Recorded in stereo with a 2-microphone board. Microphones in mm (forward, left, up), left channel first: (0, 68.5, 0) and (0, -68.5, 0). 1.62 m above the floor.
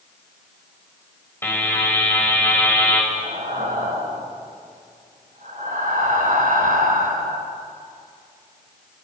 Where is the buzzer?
15° left (ahead or behind), 6.5 m.